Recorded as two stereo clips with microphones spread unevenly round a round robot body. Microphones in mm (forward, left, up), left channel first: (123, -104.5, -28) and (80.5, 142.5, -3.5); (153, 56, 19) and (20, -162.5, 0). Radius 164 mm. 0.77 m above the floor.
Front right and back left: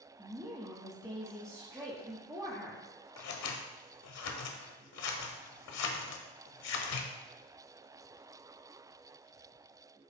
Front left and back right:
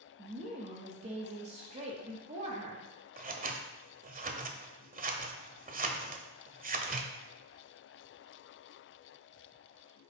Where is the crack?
I don't hear a crack.